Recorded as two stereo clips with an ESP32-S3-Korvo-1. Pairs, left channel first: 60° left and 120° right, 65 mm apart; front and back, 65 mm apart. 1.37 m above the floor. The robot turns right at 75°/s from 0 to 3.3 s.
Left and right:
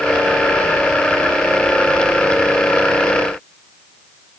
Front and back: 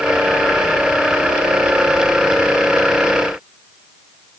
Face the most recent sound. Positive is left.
No sound to turn to.